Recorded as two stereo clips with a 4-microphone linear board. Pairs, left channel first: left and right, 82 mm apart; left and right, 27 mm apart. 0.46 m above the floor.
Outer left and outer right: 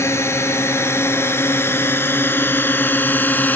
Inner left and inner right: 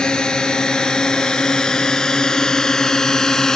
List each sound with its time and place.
0.0 s a drone: 35° left (ahead or behind); by 3.6 s 25° left (ahead or behind)